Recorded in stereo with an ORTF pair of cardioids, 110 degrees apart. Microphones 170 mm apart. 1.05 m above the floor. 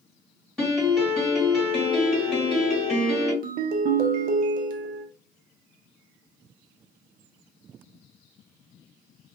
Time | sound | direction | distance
0.6 | a piano | straight ahead | 1.6 m
3.4 | a ringtone | 55° right | 0.6 m